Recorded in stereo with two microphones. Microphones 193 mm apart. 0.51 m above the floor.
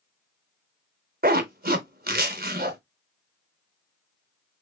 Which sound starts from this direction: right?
A zipper, at 1.2 s.